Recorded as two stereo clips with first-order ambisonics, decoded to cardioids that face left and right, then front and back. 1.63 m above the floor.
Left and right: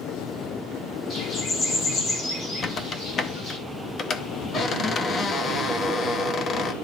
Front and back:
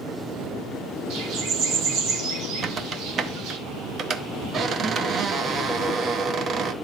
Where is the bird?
145° left, 1.8 m.